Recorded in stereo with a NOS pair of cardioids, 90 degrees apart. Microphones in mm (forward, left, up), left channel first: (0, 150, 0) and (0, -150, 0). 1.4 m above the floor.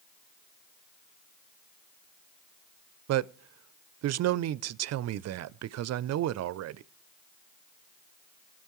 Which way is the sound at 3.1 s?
60° right.